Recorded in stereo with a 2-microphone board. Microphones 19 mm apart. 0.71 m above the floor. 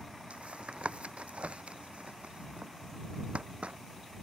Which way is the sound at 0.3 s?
85° right.